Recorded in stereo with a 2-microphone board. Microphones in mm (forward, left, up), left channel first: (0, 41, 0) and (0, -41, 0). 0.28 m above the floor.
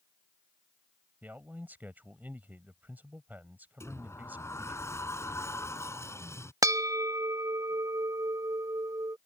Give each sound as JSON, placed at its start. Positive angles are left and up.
{"t": 1.2, "sound": "a man speaking", "side_deg": -20}
{"t": 3.8, "sound": "a sliding door", "side_deg": 35}
{"t": 6.6, "sound": "a bell", "side_deg": -45}